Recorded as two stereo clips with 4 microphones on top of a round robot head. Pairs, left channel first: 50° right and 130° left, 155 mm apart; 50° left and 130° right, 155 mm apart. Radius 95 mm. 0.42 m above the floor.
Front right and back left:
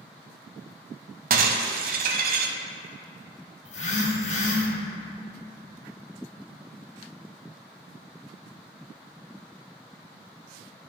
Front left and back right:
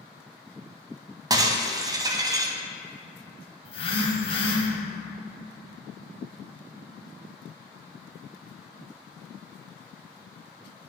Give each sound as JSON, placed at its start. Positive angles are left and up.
{"t": 1.3, "sound": "breaking glass", "azimuth_deg": 165, "distance_m": 0.7}
{"t": 3.6, "sound": "a phone buzzing", "azimuth_deg": -5, "distance_m": 1.7}